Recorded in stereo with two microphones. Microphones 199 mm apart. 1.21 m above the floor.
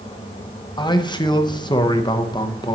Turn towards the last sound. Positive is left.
turn(degrees=20)  # may be behind; listen again after turning